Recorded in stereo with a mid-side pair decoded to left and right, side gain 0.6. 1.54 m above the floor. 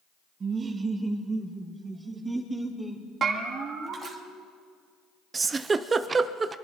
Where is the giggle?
25° right, 0.7 m.